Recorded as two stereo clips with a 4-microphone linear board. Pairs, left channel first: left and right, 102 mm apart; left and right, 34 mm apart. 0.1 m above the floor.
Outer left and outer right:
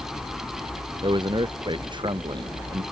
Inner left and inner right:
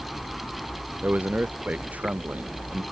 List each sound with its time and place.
1.0 s a man speaking: 45° right (ahead or behind)